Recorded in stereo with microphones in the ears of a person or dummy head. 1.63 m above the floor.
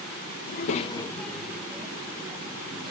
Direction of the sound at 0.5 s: 60° left (ahead or behind).